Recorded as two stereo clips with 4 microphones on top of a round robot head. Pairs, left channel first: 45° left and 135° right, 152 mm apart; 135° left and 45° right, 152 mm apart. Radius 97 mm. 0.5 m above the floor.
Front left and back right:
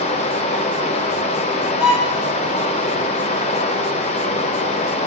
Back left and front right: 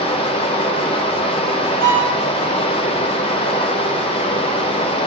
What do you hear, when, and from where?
0.0 s running water: 85° left, 1.0 m
1.8 s a violin: 140° left, 3 m